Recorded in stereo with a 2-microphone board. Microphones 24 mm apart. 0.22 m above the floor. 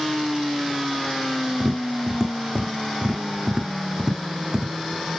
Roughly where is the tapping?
Right.